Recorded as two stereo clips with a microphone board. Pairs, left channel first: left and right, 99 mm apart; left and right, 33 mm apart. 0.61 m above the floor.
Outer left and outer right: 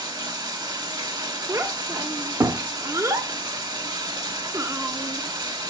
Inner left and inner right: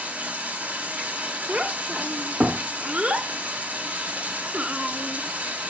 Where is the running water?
50° right (ahead or behind), 1.5 m.